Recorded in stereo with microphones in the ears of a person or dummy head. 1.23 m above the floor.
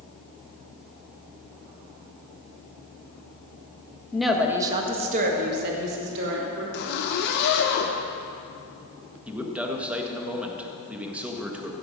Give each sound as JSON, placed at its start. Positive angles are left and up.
{"t": 4.1, "sound": "a woman speaking", "side_deg": 15, "distance_m": 1.4}
{"t": 6.7, "sound": "a zipper", "side_deg": 65, "distance_m": 1.3}
{"t": 9.3, "sound": "a man speaking", "side_deg": 0, "distance_m": 1.4}